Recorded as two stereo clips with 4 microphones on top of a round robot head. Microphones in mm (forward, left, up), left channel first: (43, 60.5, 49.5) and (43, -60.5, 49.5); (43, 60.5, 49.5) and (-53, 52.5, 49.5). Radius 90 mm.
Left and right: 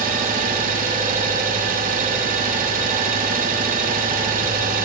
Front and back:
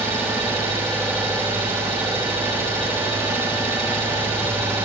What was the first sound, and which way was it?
An engine running, 100° right.